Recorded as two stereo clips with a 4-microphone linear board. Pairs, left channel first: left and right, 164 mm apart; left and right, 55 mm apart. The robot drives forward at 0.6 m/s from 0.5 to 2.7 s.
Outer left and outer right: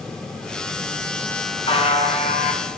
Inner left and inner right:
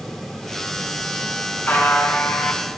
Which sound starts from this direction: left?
A buzzer, at 1.7 s.